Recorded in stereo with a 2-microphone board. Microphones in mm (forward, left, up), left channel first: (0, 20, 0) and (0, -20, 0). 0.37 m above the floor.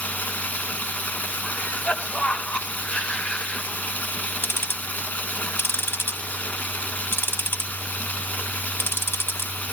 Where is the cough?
20° left (ahead or behind), 1.4 m.